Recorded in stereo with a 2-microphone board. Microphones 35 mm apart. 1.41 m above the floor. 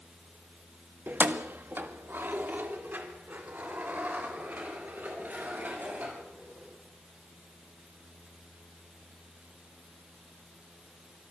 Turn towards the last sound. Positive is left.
turn(degrees=-55)  # may be behind; listen again after turning